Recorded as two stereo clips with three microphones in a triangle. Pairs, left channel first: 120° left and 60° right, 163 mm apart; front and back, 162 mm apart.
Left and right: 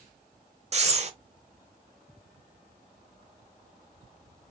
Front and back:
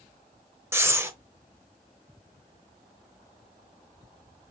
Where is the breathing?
105° right, 0.7 m.